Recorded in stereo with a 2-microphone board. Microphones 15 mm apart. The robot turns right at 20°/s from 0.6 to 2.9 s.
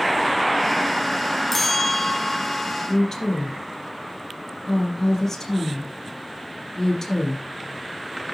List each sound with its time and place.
1.5 s a bell: 20° left (ahead or behind), 0.8 m; by 2.7 s 25° left (ahead or behind), 0.8 m
2.9 s a woman speaking: 15° left (ahead or behind), 4 m